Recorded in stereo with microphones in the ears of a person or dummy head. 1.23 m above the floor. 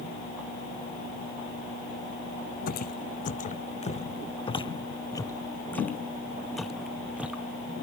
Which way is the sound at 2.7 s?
50° left (ahead or behind).